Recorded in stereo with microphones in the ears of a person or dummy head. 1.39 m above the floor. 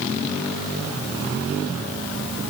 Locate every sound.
Only background noise.